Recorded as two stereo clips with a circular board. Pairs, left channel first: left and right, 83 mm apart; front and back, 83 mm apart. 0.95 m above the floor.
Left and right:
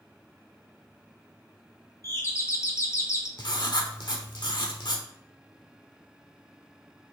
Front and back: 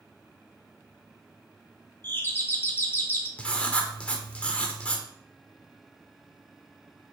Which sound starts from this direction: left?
Writing, at 3.4 s.